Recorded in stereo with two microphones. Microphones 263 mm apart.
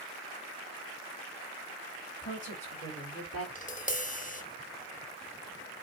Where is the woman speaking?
45° left (ahead or behind), 4 m; by 3.5 s 60° left (ahead or behind), 2.5 m.